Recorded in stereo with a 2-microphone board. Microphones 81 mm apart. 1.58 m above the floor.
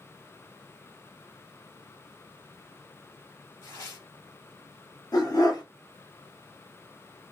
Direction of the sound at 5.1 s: 50° left (ahead or behind).